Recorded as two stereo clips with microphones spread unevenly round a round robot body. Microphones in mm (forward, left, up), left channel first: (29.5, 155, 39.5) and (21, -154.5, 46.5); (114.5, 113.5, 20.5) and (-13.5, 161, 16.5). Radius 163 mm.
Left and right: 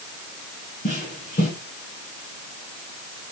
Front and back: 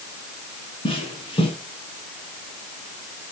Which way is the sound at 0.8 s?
25° left.